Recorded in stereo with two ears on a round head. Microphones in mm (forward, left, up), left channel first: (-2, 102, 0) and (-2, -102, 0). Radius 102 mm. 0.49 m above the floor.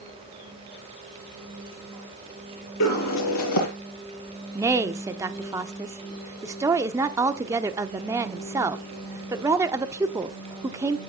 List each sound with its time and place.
2.8 s a bird: 85° left, 4 m
4.5 s a woman speaking: 15° right (ahead or behind), 0.8 m